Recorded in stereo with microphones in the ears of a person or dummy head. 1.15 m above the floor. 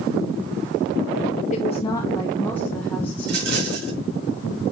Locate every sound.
1.5 s a woman speaking: 35° left (ahead or behind), 0.6 m; by 3.8 s 5° left (ahead or behind), 2 m
3.2 s a rattle: 65° right (ahead or behind), 2.5 m